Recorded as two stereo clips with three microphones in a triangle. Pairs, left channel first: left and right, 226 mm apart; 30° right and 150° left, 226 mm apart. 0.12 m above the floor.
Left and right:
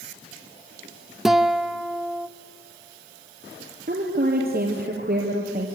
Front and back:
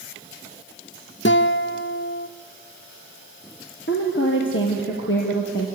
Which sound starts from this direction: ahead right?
A woman speaking, at 3.9 s.